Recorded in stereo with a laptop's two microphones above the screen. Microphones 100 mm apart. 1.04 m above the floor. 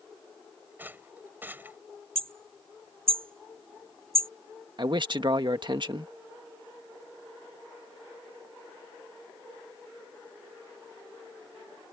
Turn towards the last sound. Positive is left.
turn(degrees=-50)  # may be behind; listen again after turning